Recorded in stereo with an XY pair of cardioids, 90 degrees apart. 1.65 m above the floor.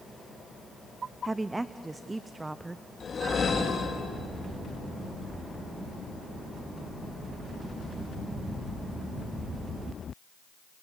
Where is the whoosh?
45° left, 2.5 m.